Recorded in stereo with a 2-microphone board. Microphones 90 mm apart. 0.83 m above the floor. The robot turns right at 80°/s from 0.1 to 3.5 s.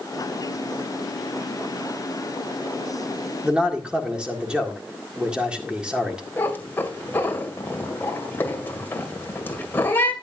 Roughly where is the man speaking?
Centre.